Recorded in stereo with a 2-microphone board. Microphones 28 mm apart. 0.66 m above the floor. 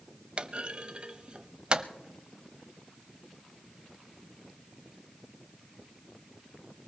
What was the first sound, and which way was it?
A clunk, 35° right (ahead or behind).